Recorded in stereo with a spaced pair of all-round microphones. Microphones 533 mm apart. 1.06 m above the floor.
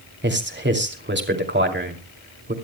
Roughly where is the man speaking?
Centre.